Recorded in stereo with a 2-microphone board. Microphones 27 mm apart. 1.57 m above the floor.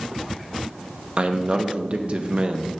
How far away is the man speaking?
About 0.7 m.